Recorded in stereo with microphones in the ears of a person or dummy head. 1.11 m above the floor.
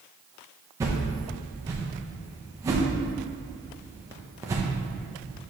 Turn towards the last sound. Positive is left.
turn(degrees=-15)  # may be behind; listen again after turning